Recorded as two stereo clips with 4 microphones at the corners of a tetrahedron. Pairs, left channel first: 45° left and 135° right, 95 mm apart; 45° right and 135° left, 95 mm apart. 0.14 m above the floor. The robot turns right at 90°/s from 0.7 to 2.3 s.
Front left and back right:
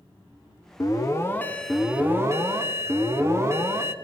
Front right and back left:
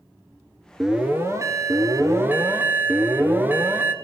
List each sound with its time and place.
0.8 s an alarm: 55° left, 1.1 m; by 3.9 s 170° right, 1.1 m